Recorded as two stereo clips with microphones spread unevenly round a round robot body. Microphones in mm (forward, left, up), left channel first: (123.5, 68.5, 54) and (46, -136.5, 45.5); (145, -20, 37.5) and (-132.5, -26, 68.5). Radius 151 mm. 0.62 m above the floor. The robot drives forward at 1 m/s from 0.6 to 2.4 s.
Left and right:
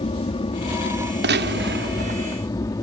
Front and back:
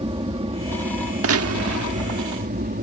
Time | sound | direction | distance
0.0 | an aircraft | 120° left | ?
1.2 | a gunshot | 140° right | ?